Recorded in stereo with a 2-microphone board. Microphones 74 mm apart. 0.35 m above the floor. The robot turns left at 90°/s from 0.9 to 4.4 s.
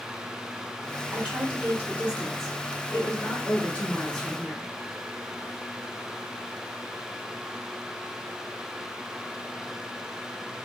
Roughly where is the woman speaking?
Centre.